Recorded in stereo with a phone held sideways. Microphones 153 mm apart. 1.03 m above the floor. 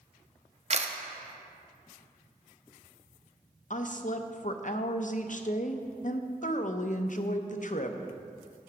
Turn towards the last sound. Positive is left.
turn(degrees=55)  # may be behind; listen again after turning